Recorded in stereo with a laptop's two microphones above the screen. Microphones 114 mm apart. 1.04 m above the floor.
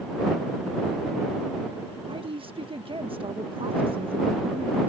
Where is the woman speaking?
50° right (ahead or behind).